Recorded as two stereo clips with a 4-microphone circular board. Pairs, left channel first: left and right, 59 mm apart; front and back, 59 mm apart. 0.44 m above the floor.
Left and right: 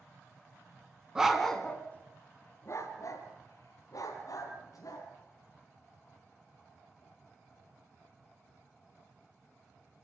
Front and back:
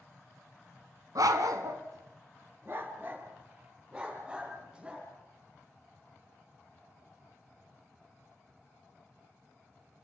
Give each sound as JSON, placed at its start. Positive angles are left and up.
{"t": 1.1, "sound": "a dog barking", "azimuth_deg": -170, "distance_m": 1.7}